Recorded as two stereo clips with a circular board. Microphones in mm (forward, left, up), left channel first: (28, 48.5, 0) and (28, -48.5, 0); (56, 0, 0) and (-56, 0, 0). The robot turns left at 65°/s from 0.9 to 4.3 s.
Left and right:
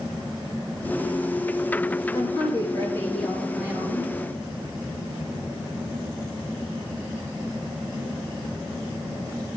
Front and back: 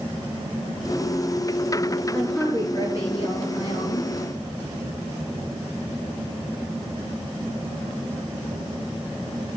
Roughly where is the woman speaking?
Left.